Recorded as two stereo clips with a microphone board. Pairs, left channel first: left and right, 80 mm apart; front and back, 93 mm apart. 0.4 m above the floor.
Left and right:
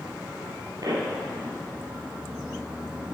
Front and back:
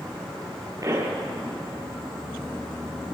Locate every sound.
0.8 s a pop: 130° right, 5 m